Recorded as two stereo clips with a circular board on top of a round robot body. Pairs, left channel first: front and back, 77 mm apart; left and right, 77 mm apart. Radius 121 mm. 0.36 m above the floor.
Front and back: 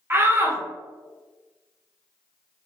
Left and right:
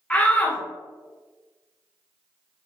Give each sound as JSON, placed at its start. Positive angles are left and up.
{"t": 0.1, "sound": "a shout", "azimuth_deg": 150, "distance_m": 1.3}